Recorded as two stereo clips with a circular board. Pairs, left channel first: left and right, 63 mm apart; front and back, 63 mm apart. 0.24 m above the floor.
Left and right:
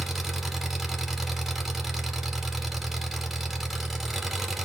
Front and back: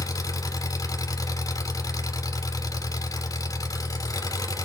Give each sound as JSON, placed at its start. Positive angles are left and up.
{"t": 0.0, "sound": "an engine running", "azimuth_deg": -5, "distance_m": 1.0}